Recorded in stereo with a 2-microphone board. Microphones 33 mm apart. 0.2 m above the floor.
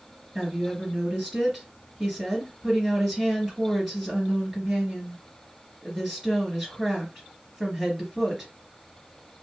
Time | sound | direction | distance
0.3 | a woman speaking | 5° right (ahead or behind) | 3.5 m